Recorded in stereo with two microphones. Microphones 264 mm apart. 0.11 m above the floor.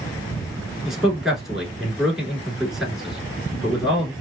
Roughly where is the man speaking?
Centre.